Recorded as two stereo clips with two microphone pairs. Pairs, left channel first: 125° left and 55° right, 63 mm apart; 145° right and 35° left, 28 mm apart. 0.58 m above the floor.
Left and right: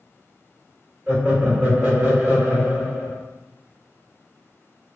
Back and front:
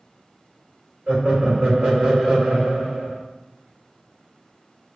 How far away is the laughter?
About 1.9 m.